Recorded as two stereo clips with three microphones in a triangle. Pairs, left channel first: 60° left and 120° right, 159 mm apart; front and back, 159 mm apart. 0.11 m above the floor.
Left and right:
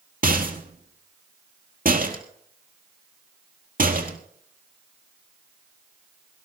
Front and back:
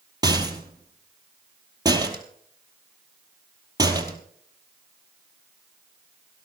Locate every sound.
0.2 s a rattle: 120° right, 1.5 m